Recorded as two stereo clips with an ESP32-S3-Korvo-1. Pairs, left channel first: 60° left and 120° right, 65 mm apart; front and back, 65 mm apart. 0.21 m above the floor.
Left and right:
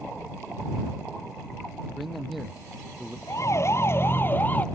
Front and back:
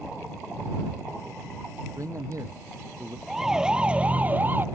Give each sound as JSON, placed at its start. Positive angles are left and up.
{"t": 1.9, "sound": "a man speaking", "azimuth_deg": 150}
{"t": 3.3, "sound": "a siren", "azimuth_deg": 95}